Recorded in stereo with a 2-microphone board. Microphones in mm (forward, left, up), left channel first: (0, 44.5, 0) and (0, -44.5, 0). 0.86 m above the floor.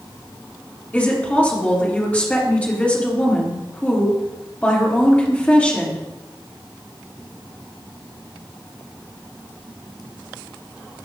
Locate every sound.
0.9 s a woman speaking: 15° left (ahead or behind), 1.9 m